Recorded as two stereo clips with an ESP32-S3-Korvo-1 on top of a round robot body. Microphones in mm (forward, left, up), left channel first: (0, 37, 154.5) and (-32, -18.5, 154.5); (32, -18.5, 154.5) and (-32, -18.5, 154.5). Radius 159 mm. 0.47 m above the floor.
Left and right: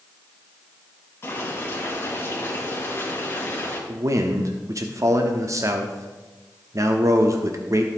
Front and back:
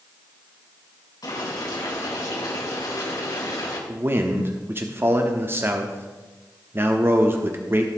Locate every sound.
1.2 s boiling: 5° left, 4 m
3.9 s a man speaking: 135° right, 1.2 m